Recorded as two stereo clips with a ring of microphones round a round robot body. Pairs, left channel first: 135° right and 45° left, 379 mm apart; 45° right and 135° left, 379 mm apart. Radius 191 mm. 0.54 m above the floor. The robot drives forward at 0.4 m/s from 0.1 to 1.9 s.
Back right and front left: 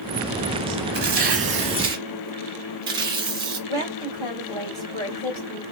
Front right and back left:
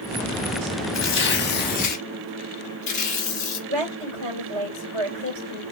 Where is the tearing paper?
5° right, 1.0 m; by 3.6 s 15° right, 0.8 m.